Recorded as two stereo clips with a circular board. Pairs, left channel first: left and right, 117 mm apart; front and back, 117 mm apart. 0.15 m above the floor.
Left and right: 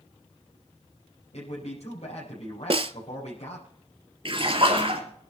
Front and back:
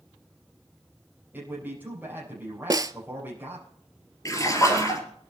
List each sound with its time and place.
1.3 s a man speaking: 105° left, 5 m
2.7 s a snare drum: 125° right, 0.6 m
4.2 s a splash: 60° right, 3.5 m